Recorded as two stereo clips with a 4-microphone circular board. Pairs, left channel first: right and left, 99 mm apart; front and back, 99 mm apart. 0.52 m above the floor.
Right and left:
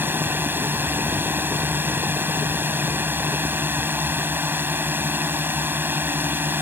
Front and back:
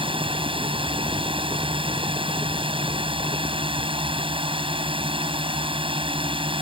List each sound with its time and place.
0.0 s a drone: 155° left